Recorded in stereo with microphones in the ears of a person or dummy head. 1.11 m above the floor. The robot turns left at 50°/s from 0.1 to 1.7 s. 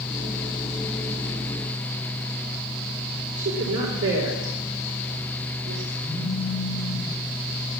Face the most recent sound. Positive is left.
turn(degrees=-15)  # may be behind; listen again after turning